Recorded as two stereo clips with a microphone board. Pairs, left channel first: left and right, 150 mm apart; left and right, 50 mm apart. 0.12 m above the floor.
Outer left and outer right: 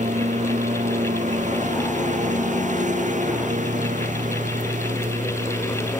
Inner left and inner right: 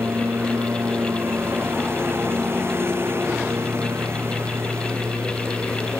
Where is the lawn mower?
55° right (ahead or behind).